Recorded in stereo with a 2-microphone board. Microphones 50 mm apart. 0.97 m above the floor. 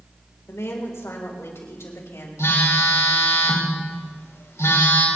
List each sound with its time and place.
0.5 s a woman speaking: 75° left (ahead or behind), 4 m; by 2.3 s 70° left (ahead or behind), 5 m
2.4 s a phone buzzing: 80° left, 4 m